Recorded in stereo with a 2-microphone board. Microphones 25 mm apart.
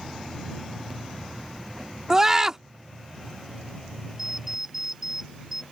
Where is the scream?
20° right (ahead or behind).